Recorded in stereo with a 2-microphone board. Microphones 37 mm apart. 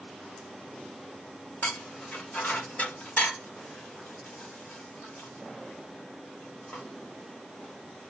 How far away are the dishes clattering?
About 1.1 m.